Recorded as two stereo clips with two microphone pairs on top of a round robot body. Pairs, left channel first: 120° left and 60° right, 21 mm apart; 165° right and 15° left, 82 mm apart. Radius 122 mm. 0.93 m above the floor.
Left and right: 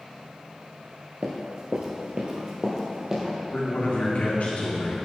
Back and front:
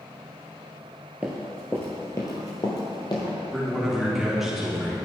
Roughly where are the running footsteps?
Ahead right.